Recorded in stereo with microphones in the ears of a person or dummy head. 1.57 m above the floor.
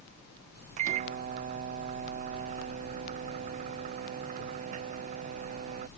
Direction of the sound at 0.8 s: 40° right (ahead or behind).